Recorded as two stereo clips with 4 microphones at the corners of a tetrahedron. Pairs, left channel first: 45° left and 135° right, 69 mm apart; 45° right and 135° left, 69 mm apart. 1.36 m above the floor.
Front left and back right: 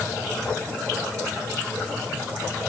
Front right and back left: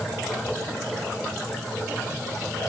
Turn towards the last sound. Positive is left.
No sound to turn to.